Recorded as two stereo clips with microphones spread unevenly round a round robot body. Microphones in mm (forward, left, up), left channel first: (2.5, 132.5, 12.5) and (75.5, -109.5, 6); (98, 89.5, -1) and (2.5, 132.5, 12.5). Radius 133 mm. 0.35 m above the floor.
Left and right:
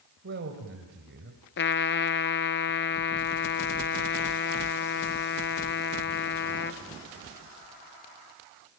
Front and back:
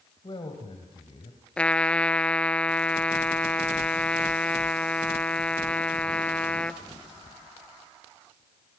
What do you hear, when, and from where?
0.2 s a man speaking: 60° right, 2 m; by 1.4 s 40° right, 2.5 m
1.6 s a trumpet: 60° left, 0.9 m